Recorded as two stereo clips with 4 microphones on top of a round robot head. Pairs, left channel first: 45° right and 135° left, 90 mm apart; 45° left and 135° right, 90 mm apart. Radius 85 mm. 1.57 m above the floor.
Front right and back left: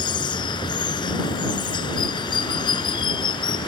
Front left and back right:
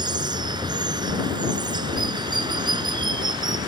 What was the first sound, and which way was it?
Running water, 90° right.